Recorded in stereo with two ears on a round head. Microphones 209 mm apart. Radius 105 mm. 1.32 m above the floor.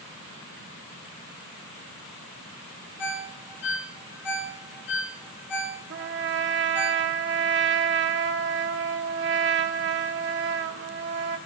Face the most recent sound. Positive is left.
turn(degrees=-50)  # may be behind; listen again after turning